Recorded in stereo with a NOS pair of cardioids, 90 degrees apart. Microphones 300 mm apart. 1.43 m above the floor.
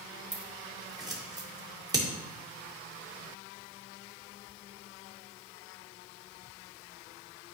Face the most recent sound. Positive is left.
turn(degrees=-15)